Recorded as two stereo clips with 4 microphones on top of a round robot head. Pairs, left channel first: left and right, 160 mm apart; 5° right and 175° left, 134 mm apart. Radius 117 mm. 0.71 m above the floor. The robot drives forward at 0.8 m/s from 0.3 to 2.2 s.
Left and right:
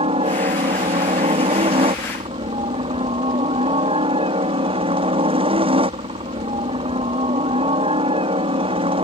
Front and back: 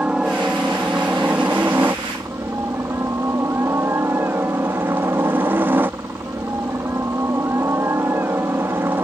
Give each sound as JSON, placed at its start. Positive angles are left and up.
{"t": 0.0, "sound": "a helicopter", "azimuth_deg": -105}